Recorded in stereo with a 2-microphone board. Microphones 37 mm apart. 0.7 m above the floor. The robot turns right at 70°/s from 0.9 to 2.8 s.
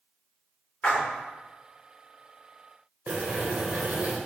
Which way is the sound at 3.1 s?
50° right (ahead or behind).